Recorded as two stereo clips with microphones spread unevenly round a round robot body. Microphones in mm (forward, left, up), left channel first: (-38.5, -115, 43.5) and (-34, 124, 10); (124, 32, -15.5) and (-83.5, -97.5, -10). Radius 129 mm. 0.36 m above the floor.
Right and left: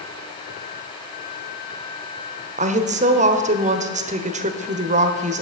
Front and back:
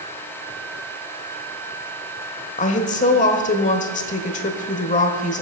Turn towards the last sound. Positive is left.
turn(degrees=70)